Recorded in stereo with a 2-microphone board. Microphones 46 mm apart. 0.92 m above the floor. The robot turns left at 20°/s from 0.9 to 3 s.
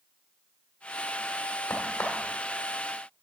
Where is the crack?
80° left, 1.5 m; by 2.3 s 85° left, 1.5 m.